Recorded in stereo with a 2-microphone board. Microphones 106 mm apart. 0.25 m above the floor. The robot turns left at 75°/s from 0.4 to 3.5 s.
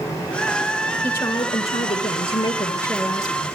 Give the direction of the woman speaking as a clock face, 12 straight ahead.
6 o'clock.